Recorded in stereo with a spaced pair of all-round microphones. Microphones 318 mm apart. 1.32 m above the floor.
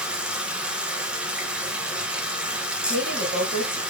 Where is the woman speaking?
55° left (ahead or behind), 2.5 m.